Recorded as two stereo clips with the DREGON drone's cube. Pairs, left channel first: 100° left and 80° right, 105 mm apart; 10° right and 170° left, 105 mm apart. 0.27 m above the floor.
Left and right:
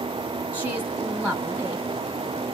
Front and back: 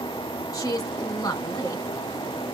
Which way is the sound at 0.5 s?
15° right.